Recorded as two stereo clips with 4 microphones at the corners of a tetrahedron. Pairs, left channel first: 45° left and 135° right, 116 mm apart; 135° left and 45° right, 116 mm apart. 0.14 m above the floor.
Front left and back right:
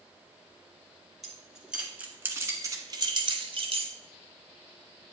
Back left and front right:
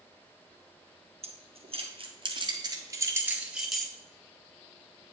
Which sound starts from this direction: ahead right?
Keys jangling, at 1.2 s.